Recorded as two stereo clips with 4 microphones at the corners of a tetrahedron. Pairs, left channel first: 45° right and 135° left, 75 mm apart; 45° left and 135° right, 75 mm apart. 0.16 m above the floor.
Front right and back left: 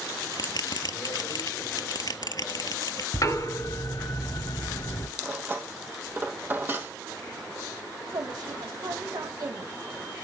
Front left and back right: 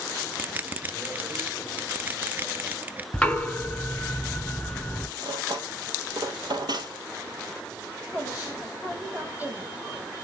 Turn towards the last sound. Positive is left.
turn(degrees=160)